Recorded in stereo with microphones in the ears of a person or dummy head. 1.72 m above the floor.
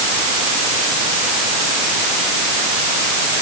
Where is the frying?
No frying in this recording.